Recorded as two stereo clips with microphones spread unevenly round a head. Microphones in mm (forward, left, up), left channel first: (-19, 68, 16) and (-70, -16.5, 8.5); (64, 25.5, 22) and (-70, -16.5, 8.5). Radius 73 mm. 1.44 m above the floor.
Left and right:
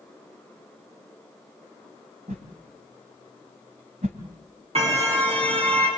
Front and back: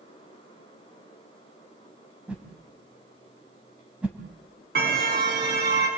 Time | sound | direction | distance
2.3 | a whoosh | 80° right | 3 m
4.8 | a car horn | 140° right | 8 m